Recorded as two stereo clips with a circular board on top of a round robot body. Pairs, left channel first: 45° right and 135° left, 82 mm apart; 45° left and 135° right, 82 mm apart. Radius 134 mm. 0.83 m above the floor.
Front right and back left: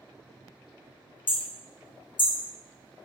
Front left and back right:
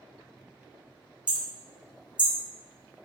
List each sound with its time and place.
1.3 s hammering: 55° right, 0.9 m